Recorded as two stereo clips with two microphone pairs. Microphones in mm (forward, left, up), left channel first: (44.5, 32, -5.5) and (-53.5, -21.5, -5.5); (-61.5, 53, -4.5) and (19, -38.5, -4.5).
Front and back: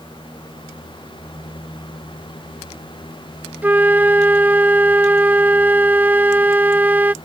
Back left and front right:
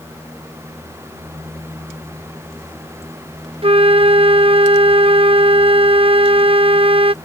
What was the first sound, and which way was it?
A flute, 80° right.